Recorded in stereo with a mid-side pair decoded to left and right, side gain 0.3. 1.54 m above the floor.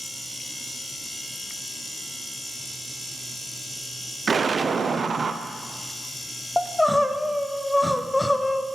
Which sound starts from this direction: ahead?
Crying, at 6.6 s.